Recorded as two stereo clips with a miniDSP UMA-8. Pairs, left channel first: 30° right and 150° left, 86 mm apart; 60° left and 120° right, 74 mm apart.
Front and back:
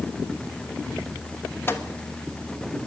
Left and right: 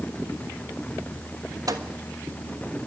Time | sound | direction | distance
1.7 | a microwave | 95° right | 1.2 m